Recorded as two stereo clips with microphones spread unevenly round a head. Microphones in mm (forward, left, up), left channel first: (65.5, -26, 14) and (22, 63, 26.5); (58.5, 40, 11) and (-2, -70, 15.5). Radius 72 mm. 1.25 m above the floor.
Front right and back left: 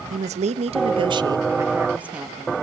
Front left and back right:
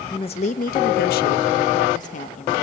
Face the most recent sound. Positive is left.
turn(degrees=30)